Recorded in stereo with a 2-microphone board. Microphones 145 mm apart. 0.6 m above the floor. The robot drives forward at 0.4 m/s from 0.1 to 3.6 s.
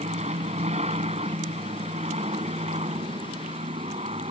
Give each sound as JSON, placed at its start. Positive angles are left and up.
{"t": 0.0, "sound": "an aircraft", "side_deg": -50}